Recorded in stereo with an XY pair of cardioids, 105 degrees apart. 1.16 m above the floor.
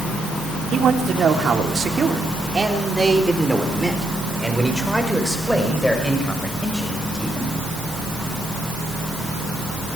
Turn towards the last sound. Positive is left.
turn(degrees=15)